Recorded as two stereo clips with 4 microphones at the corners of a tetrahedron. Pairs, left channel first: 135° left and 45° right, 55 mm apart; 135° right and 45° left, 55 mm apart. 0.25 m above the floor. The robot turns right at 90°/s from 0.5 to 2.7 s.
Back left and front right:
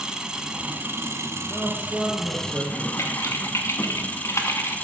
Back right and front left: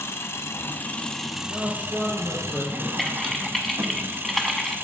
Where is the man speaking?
105° left, 2.5 m; by 2.9 s 145° right, 2.5 m.